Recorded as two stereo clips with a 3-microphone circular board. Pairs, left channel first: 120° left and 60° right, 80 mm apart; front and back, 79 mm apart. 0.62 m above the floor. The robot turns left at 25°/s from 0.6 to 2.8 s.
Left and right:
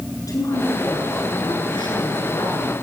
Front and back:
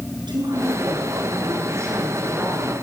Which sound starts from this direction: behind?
A woman speaking, at 0.3 s.